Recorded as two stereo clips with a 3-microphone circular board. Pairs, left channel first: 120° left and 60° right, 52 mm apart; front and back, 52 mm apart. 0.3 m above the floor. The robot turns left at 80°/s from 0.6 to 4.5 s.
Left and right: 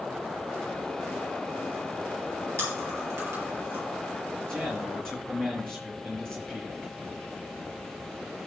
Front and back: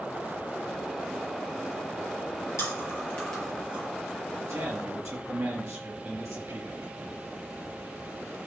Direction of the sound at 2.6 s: 20° right.